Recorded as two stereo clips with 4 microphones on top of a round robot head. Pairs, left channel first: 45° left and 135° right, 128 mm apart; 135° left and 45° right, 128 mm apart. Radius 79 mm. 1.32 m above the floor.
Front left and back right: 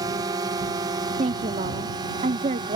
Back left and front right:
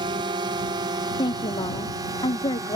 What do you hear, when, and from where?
0.0 s a drone: 85° right; by 2.8 s 95° right
1.2 s a woman speaking: 170° right